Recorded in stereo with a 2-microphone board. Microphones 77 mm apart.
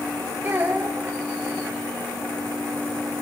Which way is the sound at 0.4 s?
25° right (ahead or behind).